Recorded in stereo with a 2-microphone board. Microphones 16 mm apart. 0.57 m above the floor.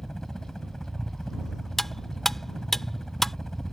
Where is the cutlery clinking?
20° left (ahead or behind).